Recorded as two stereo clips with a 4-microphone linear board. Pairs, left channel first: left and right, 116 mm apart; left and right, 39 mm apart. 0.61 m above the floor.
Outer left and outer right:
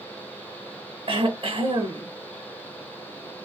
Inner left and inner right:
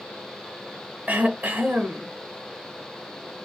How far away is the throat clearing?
About 0.7 m.